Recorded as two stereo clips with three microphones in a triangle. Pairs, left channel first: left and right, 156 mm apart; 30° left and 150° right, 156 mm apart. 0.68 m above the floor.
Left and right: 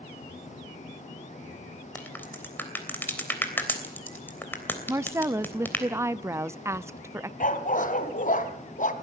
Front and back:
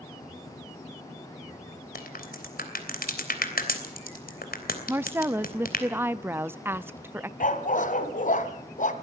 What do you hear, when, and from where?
1.9 s a crack: 15° left, 3 m
4.9 s a woman speaking: 110° right, 0.6 m
7.4 s a dog barking: 60° left, 1.8 m